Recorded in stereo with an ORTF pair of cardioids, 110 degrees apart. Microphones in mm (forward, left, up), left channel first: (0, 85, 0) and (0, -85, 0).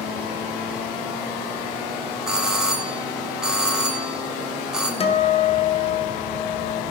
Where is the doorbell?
5° right, 1.7 m.